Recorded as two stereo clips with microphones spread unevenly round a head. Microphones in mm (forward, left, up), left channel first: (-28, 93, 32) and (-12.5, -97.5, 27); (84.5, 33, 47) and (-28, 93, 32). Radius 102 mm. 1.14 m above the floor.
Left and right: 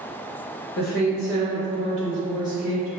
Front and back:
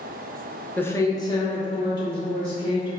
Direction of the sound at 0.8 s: 55° left.